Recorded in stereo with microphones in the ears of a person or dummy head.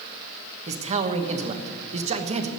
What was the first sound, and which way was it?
A man speaking, 35° right (ahead or behind).